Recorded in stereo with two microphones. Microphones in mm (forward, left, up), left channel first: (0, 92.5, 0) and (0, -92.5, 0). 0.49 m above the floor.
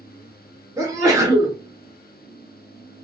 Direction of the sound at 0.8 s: 20° right (ahead or behind).